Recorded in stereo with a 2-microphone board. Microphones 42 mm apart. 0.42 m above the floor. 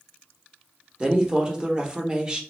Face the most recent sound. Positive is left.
turn(degrees=-20)  # may be behind; listen again after turning